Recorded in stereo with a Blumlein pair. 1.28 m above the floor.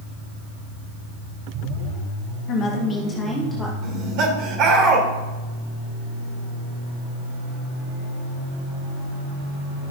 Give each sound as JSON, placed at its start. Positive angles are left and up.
{"t": 2.5, "sound": "a woman speaking", "azimuth_deg": 35, "distance_m": 1.2}
{"t": 3.8, "sound": "laughter", "azimuth_deg": -40, "distance_m": 3.5}